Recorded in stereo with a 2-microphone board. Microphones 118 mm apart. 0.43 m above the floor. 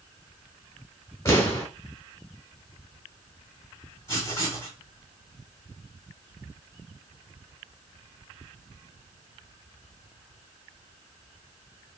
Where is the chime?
No chime in this recording.